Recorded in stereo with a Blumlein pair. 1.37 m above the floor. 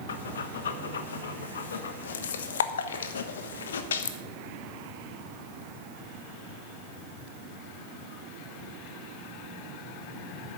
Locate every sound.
0.1 s breathing: 65° left, 1.2 m